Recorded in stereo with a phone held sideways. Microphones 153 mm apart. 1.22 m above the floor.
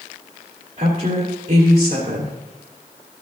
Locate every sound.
0.8 s a woman speaking: 75° right (ahead or behind), 2.5 m